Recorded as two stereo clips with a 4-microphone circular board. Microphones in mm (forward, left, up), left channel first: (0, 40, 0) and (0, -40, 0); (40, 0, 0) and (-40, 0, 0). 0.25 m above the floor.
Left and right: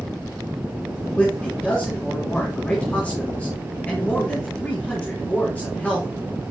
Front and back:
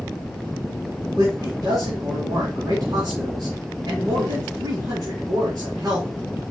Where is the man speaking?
160° left, 3 m.